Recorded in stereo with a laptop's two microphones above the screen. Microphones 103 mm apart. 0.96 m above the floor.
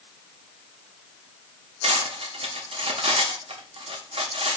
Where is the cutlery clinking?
65° right (ahead or behind), 0.8 m.